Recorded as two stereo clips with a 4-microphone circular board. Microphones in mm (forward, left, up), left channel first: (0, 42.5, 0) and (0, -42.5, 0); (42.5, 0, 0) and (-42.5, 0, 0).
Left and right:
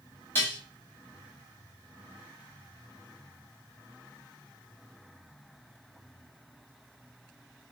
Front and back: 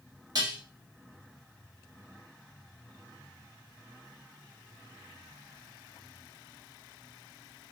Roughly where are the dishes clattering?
Behind left.